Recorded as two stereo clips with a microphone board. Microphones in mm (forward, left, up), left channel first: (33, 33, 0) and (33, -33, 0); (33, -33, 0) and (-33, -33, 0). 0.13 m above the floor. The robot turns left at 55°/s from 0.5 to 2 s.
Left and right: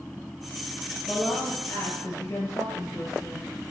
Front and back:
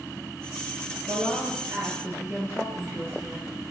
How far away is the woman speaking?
About 2.5 m.